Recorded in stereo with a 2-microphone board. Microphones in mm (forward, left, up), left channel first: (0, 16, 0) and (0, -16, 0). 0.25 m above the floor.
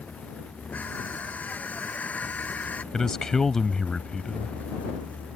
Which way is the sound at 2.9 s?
15° left (ahead or behind).